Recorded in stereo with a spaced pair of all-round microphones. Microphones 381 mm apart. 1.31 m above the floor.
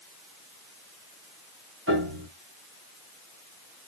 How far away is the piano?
About 2 m.